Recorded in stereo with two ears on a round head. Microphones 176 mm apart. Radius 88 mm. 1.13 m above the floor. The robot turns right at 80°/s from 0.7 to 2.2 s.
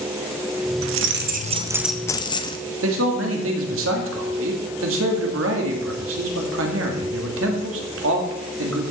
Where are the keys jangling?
85° right, 0.6 m; by 2.6 s 25° left, 0.6 m.